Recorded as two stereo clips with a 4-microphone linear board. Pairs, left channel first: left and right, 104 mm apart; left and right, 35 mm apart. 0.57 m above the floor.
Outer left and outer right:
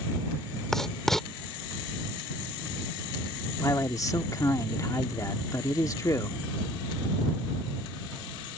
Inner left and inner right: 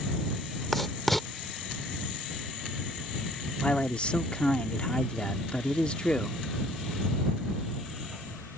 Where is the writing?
5° left (ahead or behind).